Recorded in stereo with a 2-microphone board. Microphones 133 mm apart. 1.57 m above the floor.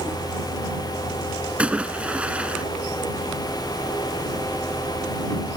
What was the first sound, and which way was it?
A splash, 10° right (ahead or behind).